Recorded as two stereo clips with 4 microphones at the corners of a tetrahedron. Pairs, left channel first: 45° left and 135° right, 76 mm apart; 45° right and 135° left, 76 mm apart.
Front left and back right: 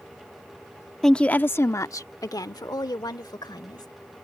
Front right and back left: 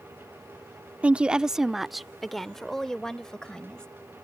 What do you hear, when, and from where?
1.0 s a woman speaking: 120° left; by 3.9 s 35° left